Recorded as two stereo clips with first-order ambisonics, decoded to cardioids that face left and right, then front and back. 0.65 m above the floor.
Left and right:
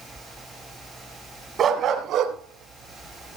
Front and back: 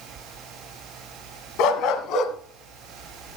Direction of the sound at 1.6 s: 30° right.